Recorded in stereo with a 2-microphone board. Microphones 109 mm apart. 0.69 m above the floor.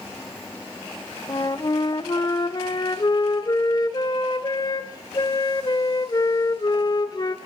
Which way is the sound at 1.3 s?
35° left (ahead or behind).